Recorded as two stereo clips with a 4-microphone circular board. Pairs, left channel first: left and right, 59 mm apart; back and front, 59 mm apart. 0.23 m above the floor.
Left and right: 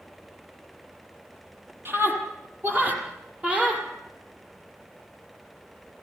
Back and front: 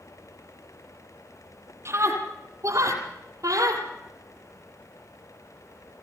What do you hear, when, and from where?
1.9 s a scream: 40° right, 6.5 m; by 3.9 s 20° right, 6.5 m